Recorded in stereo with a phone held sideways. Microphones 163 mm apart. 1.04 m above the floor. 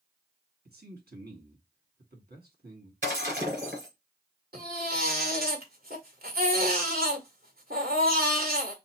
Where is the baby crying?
70° right (ahead or behind), 1.8 m.